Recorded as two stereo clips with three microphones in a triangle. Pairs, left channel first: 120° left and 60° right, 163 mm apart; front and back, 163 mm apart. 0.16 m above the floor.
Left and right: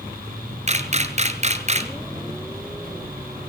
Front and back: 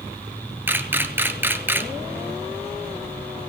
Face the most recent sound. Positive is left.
turn(degrees=-105)